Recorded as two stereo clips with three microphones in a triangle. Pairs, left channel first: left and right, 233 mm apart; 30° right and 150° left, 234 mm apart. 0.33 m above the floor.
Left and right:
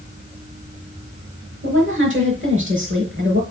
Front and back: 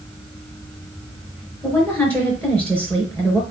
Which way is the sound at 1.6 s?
115° right.